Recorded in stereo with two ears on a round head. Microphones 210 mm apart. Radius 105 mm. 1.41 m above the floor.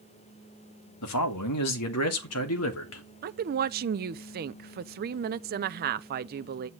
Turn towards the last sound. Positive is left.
turn(degrees=-40)  # may be behind; listen again after turning